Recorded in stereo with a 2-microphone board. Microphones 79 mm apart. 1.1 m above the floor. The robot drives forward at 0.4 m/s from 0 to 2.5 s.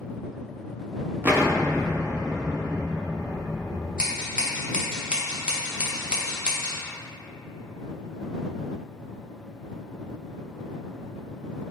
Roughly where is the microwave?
No microwave in this recording.